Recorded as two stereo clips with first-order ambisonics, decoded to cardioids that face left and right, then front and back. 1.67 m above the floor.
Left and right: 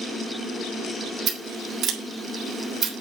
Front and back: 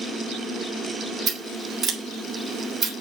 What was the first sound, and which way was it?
Scissors, 140° right.